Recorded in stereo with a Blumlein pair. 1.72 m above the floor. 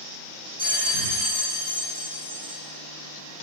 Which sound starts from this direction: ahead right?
A bell, at 0.6 s.